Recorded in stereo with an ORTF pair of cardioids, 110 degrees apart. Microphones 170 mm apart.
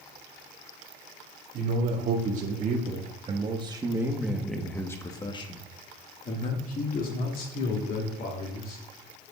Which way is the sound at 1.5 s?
60° right.